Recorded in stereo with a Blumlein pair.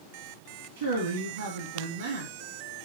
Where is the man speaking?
60° right, 2 m.